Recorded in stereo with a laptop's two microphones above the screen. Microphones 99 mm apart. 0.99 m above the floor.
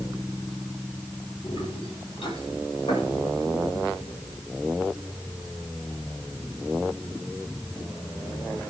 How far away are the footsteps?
About 6.5 m.